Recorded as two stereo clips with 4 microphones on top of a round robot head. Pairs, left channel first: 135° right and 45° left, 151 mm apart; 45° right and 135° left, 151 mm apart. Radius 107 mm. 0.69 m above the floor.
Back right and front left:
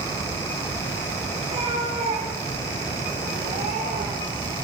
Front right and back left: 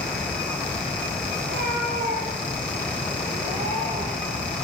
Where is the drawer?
No drawer in this recording.